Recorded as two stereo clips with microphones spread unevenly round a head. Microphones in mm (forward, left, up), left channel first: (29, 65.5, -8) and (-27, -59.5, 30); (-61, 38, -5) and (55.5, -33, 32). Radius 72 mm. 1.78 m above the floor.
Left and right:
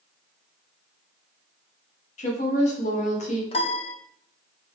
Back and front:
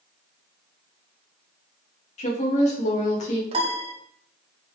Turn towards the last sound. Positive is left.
turn(degrees=10)